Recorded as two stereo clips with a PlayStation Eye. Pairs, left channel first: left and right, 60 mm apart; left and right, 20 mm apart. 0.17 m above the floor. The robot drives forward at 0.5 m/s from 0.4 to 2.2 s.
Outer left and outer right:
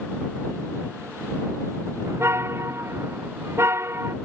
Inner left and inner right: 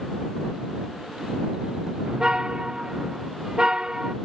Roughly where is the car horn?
Right.